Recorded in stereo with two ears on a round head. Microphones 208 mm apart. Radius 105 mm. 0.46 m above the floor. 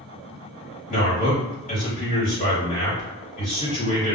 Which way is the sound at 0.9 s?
35° left (ahead or behind).